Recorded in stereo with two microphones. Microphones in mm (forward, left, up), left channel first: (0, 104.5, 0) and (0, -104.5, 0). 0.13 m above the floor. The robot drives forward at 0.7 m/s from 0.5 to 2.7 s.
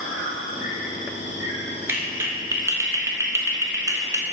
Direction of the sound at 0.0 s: 80° left.